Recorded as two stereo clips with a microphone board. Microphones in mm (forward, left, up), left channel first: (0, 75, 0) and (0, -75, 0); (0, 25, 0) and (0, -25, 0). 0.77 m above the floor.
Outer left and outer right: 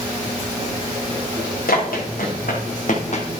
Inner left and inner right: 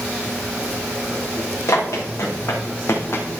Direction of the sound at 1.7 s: 80° left.